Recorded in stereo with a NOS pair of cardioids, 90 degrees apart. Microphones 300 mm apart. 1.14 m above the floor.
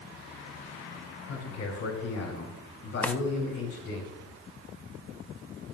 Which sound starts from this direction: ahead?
A drawer, at 3.0 s.